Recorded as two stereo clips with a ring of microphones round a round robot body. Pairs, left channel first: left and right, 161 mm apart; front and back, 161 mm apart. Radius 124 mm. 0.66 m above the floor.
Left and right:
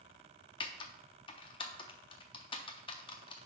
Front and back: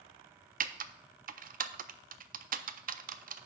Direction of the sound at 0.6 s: 150° left.